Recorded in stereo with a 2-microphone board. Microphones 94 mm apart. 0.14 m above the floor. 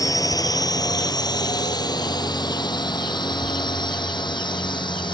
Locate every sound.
0.0 s a drone: 40° left (ahead or behind); by 5.2 s 55° left (ahead or behind)